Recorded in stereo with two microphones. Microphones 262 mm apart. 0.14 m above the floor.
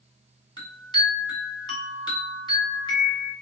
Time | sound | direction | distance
0.6 | a chime | 15° left (ahead or behind) | 1.5 m